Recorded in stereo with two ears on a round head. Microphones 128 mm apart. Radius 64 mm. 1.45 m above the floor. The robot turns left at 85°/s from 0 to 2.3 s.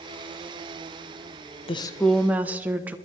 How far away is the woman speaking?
About 1.0 m.